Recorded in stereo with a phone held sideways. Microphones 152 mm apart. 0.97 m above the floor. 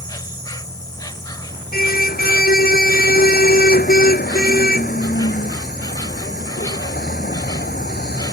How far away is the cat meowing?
No cat meowing in this recording.